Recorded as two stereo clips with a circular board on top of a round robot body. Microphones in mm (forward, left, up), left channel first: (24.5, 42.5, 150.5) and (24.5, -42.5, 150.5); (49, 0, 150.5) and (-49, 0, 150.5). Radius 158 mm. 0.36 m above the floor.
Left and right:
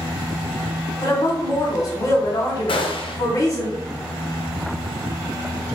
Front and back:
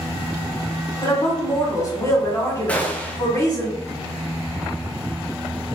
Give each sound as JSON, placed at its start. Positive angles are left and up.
{"t": 1.0, "sound": "a woman speaking", "azimuth_deg": 50, "distance_m": 1.7}
{"t": 2.7, "sound": "a gunshot", "azimuth_deg": 75, "distance_m": 0.7}